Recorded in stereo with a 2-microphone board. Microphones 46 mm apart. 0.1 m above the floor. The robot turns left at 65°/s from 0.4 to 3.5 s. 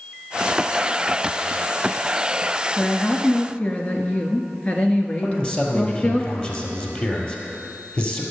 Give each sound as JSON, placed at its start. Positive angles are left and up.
{"t": 2.8, "sound": "a woman speaking", "azimuth_deg": 160, "distance_m": 1.2}
{"t": 5.2, "sound": "a man speaking", "side_deg": 30, "distance_m": 1.9}